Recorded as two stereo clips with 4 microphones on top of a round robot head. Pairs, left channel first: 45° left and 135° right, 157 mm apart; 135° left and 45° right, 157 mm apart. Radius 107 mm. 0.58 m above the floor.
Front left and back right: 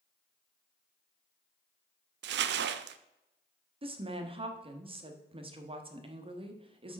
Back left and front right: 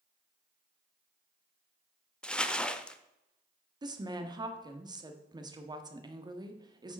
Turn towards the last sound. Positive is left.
turn(degrees=-100)